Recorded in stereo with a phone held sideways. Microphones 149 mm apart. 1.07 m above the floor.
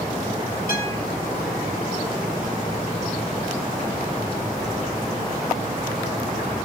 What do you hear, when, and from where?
0.7 s a guitar: 80° left, 5.5 m